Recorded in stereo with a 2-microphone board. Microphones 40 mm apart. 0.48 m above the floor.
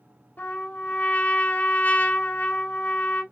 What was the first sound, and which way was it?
A trumpet, 50° left (ahead or behind).